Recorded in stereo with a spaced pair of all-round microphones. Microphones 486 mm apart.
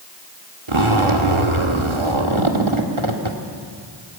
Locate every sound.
0.7 s a zipper: 75° right (ahead or behind), 2.0 m